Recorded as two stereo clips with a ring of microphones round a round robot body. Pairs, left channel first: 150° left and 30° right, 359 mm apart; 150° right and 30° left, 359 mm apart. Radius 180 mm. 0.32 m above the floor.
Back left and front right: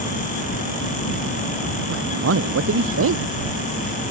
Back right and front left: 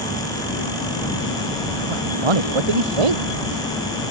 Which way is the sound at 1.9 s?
25° left.